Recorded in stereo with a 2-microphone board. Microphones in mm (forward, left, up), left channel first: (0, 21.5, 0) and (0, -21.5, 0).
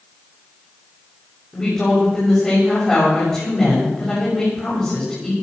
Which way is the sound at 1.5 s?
20° left (ahead or behind).